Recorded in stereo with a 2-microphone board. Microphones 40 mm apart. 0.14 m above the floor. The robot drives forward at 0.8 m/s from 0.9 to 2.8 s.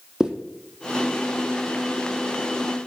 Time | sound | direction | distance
0.2 | a zipper | 15° right (ahead or behind) | 1.4 m